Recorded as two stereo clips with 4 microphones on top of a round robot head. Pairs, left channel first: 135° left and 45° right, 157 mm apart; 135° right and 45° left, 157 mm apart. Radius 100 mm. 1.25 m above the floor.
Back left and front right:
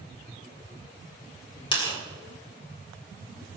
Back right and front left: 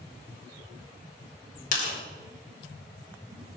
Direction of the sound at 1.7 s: 170° right.